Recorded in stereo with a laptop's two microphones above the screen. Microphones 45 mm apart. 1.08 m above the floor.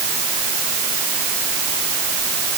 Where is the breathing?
No breathing in this recording.